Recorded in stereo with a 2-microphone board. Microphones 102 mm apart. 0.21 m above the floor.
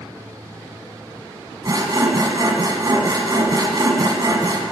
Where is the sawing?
40° right (ahead or behind), 1.2 m.